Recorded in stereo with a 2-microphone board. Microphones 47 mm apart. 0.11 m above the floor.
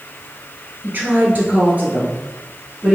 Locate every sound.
0.8 s a woman speaking: 45° right (ahead or behind), 1.4 m; by 3.0 s 10° right (ahead or behind), 1.5 m